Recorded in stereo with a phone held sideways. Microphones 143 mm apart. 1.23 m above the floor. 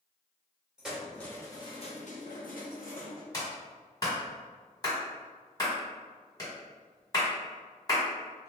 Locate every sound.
0.8 s keys jangling: 5° right (ahead or behind), 0.8 m; by 3.2 s 75° left (ahead or behind), 1.0 m
3.3 s a clap: 25° left (ahead or behind), 1.5 m